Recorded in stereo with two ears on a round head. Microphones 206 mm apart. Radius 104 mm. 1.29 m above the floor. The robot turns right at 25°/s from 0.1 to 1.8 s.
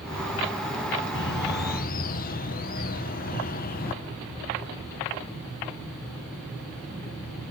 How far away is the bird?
About 0.8 m.